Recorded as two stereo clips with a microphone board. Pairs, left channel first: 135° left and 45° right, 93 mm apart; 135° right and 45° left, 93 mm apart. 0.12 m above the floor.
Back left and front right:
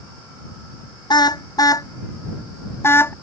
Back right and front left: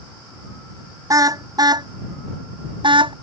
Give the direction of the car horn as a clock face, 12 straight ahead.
9 o'clock.